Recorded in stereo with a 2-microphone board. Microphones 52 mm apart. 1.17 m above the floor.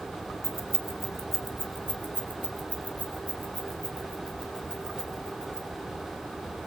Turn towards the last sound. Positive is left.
turn(degrees=10)  # may be behind; listen again after turning